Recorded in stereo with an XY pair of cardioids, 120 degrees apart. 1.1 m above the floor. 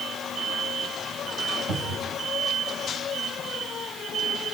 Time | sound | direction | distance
1.7 | a cupboard door | 60° right | 7 m